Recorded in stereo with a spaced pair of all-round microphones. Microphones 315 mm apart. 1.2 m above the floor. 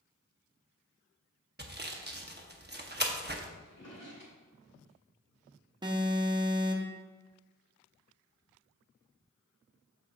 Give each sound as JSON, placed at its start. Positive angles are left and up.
{"t": 1.6, "sound": "sawing", "side_deg": -35, "distance_m": 0.8}
{"t": 3.6, "sound": "a drawer", "side_deg": 55, "distance_m": 2.0}
{"t": 5.8, "sound": "an alarm", "side_deg": -15, "distance_m": 0.8}